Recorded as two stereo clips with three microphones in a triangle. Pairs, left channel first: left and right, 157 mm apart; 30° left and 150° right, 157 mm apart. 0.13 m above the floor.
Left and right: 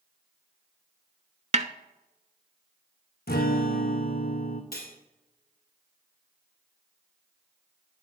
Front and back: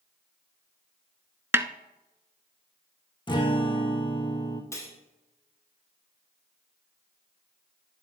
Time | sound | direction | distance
1.5 | a snare drum | 80° right | 0.5 m
3.3 | a guitar | 90° left | 1.6 m
4.7 | cutlery clinking | 100° left | 2.5 m